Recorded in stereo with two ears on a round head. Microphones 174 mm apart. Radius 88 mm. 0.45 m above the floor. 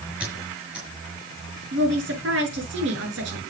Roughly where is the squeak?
Centre.